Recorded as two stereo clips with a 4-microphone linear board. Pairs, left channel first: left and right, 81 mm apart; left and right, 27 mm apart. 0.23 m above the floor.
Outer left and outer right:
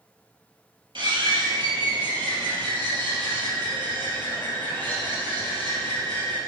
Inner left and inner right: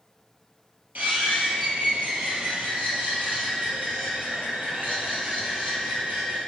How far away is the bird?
About 3.5 m.